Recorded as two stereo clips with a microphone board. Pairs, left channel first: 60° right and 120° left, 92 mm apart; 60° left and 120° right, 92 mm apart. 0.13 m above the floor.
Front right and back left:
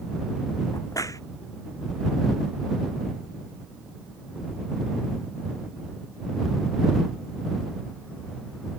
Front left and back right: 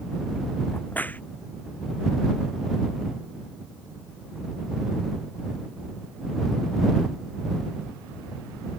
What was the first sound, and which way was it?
A crack, 10° right.